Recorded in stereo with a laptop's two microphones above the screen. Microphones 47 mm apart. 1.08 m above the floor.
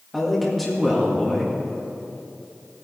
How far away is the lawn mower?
No lawn mower in this recording.